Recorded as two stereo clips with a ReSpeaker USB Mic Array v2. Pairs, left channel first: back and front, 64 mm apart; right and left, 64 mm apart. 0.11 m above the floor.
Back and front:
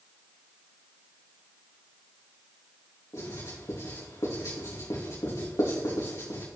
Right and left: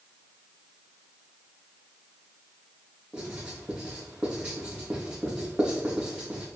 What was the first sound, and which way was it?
Writing, 165° left.